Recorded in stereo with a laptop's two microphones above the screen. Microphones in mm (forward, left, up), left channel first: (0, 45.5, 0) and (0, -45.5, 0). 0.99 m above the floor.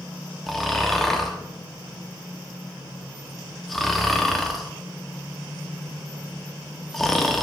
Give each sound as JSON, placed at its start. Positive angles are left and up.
{"t": 0.5, "sound": "snoring", "side_deg": 0, "distance_m": 1.5}